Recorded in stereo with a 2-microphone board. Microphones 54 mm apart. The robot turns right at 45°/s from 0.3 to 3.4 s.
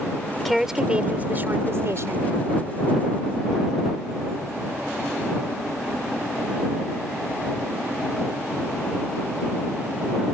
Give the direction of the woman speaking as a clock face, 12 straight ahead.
6 o'clock.